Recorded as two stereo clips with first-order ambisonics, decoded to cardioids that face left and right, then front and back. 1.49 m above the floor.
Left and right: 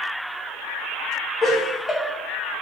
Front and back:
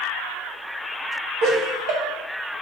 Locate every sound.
1.4 s laughter: 165° left, 0.8 m